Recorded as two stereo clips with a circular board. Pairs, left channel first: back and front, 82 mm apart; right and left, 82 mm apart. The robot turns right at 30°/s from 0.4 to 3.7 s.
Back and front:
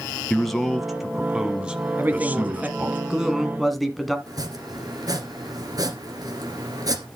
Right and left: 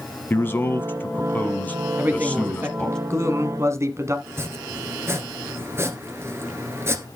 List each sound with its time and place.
0.3 s a man speaking: 100° right, 1.1 m; by 3.0 s 20° right, 1.1 m
2.0 s a man speaking: 40° left, 1.4 m; by 4.2 s 90° left, 1.4 m
4.3 s chopping: 35° left, 1.7 m